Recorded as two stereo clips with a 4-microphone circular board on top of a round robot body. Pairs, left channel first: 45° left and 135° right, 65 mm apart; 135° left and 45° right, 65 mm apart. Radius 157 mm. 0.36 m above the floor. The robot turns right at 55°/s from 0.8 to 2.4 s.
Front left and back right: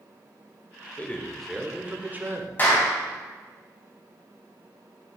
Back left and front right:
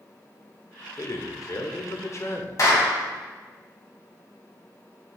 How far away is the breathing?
I don't hear breathing.